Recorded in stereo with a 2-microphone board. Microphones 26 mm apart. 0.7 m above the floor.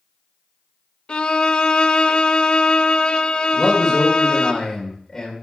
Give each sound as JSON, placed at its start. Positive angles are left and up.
{"t": 1.1, "sound": "a violin", "side_deg": 40, "distance_m": 0.6}
{"t": 3.5, "sound": "a man speaking", "side_deg": 15, "distance_m": 3.0}